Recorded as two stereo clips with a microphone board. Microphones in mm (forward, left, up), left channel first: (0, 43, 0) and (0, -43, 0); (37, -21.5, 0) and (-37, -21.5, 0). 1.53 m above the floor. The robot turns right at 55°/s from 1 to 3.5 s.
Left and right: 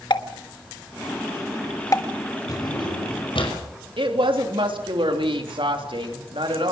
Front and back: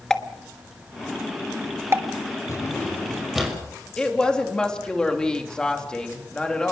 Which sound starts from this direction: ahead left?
A drawer, at 2.5 s.